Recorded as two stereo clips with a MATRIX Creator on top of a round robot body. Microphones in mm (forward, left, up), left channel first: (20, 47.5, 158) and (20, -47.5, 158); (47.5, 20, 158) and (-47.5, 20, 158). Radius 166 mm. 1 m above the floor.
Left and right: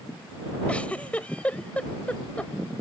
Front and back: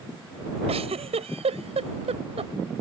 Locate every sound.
0.7 s a giggle: 170° left